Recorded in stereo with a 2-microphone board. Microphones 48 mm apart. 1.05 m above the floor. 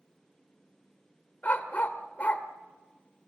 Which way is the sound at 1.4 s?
35° left (ahead or behind).